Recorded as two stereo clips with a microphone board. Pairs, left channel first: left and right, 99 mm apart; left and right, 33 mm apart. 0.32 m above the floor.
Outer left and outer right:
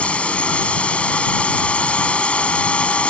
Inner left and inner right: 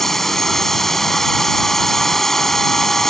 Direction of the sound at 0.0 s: 15° left (ahead or behind).